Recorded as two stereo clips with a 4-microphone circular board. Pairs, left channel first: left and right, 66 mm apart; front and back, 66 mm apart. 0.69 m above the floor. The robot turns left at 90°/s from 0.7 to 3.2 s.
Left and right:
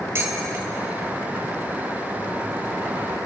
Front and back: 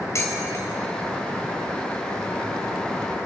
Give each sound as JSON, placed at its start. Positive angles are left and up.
{"t": 0.1, "sound": "dishes clattering", "azimuth_deg": -40, "distance_m": 2.5}